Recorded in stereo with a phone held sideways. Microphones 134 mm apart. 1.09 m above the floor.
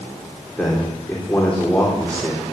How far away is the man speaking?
About 3.5 m.